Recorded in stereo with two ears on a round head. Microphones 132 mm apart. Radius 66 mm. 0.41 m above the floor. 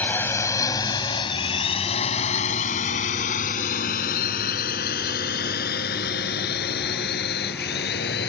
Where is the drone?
10° left (ahead or behind); by 8.3 s 75° left (ahead or behind).